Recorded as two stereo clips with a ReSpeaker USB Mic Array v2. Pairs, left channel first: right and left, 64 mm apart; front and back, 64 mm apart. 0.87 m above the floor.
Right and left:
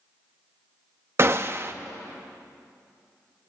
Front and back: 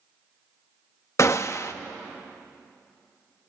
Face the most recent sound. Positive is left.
turn(degrees=40)